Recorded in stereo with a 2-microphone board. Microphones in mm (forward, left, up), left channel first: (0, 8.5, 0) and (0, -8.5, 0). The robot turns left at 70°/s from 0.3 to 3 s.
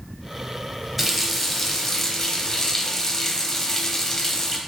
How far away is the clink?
No clink in this recording.